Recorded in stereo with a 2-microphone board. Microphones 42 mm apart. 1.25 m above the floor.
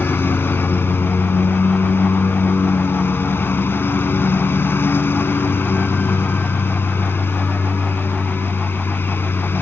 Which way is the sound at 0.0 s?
65° left (ahead or behind).